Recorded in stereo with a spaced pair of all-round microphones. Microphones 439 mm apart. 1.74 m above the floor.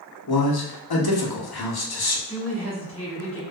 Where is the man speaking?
60° left (ahead or behind), 0.6 m.